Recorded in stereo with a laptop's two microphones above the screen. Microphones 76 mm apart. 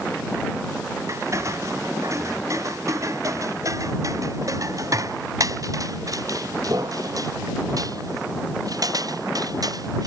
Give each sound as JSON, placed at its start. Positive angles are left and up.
{"t": 1.1, "sound": "footsteps", "side_deg": -40}